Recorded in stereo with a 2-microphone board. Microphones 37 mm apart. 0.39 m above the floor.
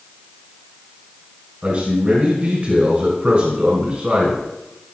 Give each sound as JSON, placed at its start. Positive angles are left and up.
{"t": 1.6, "sound": "a man speaking", "side_deg": -35, "distance_m": 2.0}